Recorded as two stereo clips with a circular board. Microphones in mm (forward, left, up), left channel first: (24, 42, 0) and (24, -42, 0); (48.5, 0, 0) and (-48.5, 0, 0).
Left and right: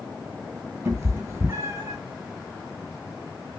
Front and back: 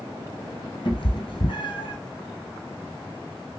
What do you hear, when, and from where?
0.8 s a cat meowing: 35° right, 1.9 m